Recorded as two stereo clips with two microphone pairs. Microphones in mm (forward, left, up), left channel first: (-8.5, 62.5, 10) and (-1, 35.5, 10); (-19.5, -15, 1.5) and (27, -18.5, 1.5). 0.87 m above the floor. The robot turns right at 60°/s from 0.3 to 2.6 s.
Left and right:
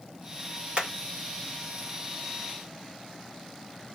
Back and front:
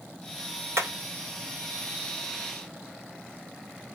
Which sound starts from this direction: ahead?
Hammering, at 0.8 s.